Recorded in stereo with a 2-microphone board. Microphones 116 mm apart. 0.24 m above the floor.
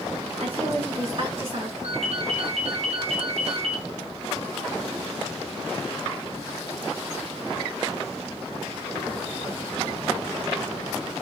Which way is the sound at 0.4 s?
50° right (ahead or behind).